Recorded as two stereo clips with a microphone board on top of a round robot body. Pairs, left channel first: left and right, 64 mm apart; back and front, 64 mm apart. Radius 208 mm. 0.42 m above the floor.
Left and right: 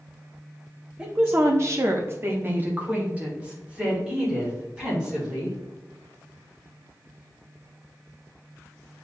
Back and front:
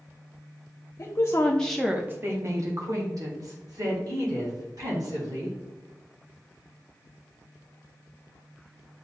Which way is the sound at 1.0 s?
155° right.